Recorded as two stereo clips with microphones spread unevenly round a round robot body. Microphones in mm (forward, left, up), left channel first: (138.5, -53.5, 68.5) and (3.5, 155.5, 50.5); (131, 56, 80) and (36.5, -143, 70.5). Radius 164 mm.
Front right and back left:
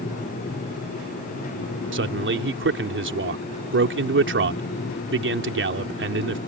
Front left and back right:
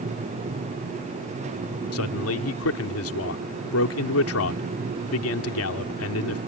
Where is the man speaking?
85° left.